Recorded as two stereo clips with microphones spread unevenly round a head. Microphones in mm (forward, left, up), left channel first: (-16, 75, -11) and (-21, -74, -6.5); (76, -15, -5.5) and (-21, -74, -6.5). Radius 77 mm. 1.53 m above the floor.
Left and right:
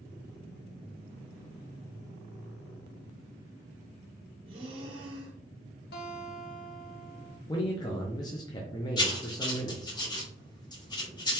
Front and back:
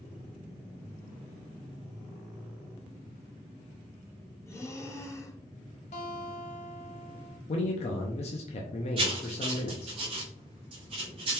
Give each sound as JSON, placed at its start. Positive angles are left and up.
{"t": 4.5, "sound": "breathing", "azimuth_deg": -35, "distance_m": 0.8}
{"t": 5.9, "sound": "a guitar", "azimuth_deg": 65, "distance_m": 0.7}
{"t": 7.5, "sound": "a man speaking", "azimuth_deg": 25, "distance_m": 0.6}
{"t": 9.0, "sound": "writing", "azimuth_deg": 150, "distance_m": 0.9}